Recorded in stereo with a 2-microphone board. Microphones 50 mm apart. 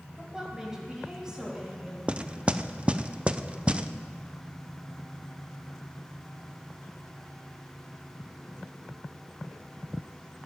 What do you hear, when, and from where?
0.2 s a woman speaking: 10° right (ahead or behind), 3 m; by 2.0 s 15° right (ahead or behind), 4 m
2.1 s knocking: 20° right (ahead or behind), 0.5 m